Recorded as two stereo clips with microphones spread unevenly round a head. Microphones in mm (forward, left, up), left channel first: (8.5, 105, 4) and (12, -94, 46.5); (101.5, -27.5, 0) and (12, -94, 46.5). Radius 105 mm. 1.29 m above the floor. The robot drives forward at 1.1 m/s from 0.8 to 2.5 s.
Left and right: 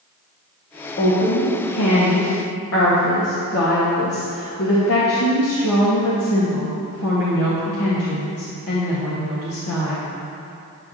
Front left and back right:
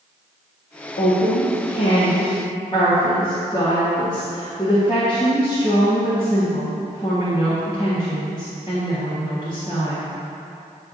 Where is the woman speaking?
50° left, 1.8 m; by 10.0 s 110° left, 1.5 m.